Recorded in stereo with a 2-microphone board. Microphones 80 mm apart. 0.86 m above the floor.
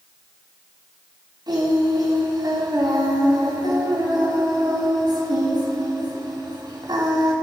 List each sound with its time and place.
1.5 s singing: 60° right (ahead or behind), 3 m